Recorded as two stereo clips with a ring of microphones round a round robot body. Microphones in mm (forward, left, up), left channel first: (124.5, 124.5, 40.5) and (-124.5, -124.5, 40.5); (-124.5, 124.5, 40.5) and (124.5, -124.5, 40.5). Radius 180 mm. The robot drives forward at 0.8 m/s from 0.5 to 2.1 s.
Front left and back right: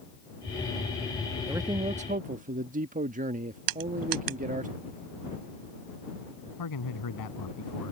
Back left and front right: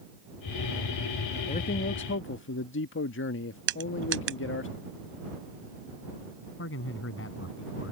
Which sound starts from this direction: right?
Crushing, at 3.7 s.